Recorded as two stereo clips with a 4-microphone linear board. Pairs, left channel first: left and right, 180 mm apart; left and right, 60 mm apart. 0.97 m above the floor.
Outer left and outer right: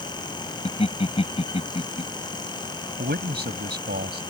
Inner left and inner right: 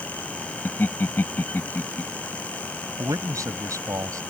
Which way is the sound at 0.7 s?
35° left (ahead or behind).